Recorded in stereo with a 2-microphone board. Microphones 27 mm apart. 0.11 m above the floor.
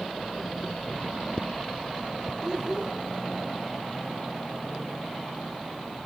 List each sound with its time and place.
2.4 s a child speaking: 25° right (ahead or behind), 2.0 m